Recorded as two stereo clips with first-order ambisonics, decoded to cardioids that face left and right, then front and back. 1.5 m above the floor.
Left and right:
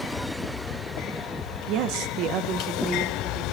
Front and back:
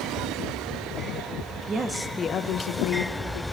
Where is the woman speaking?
120° right, 0.9 m; by 3.4 s 15° right, 1.8 m.